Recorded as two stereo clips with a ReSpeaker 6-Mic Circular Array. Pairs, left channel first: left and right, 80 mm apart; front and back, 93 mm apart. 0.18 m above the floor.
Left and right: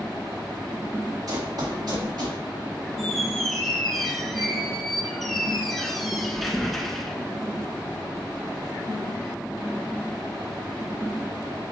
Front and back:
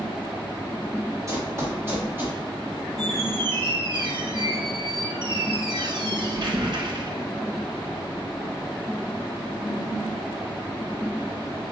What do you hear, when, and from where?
1.3 s running footsteps: 125° right, 2.5 m; by 2.4 s 110° right, 4 m
3.0 s a squeak: straight behind, 1.3 m